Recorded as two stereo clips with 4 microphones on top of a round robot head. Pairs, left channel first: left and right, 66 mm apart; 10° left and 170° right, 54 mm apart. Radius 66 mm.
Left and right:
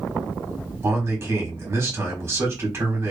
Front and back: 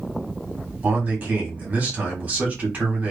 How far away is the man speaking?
About 1.5 m.